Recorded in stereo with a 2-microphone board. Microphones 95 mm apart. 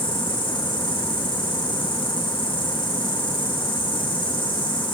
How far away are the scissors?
No scissors in this recording.